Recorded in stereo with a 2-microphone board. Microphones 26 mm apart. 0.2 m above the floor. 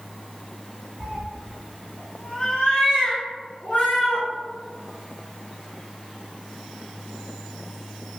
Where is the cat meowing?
45° right (ahead or behind), 0.7 m; by 4.3 s 70° left (ahead or behind), 1.6 m.